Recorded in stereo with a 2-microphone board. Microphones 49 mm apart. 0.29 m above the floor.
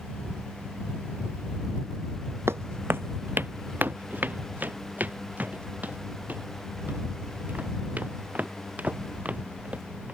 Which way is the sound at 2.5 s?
65° right (ahead or behind).